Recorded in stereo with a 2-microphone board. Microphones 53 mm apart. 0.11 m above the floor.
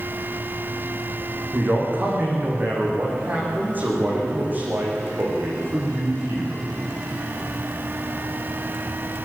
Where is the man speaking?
35° right (ahead or behind), 8 m.